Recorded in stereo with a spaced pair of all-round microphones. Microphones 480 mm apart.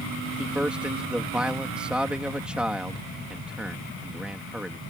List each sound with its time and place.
0.4 s a man speaking: centre (ahead or behind)